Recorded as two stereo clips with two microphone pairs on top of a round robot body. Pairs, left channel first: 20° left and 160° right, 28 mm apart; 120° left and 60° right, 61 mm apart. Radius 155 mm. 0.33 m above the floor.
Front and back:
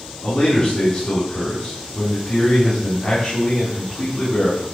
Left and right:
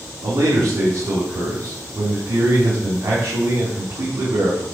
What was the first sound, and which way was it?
A man speaking, 15° right.